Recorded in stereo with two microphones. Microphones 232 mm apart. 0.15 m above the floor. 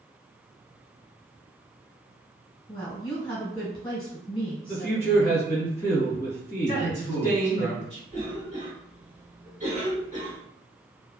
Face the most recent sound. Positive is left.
turn(degrees=-35)  # may be behind; listen again after turning